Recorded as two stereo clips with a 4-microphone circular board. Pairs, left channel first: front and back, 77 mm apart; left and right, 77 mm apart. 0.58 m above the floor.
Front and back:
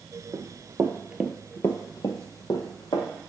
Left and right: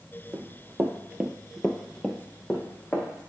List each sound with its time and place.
0.3 s running footsteps: 150° right, 1.0 m; by 3.1 s 15° left, 1.6 m